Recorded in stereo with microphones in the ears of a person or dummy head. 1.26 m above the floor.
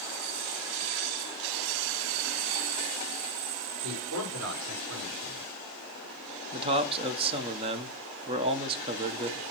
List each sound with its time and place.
3.8 s a man speaking: 80° right, 4.5 m
6.5 s a man speaking: 30° right (ahead or behind), 0.9 m